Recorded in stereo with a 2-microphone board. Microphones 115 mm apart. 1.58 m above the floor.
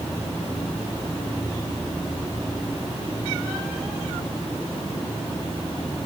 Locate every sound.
Only background noise.